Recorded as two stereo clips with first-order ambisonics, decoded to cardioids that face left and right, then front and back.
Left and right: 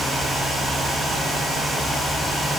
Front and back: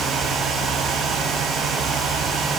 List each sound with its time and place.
Only background noise.